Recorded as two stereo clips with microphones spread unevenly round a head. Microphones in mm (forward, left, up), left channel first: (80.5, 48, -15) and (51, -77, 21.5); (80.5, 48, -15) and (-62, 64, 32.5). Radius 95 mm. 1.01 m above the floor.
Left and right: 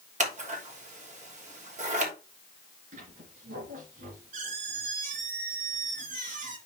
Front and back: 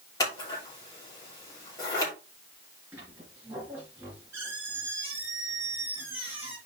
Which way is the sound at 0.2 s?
75° right.